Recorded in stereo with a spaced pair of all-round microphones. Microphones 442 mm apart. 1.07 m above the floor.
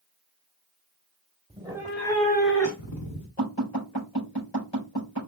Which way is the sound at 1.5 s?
15° right (ahead or behind).